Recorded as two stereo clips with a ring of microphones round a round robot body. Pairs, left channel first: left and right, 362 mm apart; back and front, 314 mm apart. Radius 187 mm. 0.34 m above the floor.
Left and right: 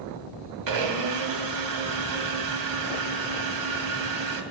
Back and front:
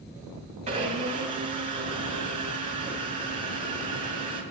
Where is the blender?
65° right, 2 m.